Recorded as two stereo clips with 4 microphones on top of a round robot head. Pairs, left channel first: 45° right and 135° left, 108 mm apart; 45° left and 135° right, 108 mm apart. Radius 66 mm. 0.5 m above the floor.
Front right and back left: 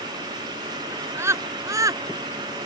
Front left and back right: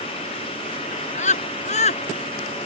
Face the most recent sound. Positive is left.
turn(degrees=75)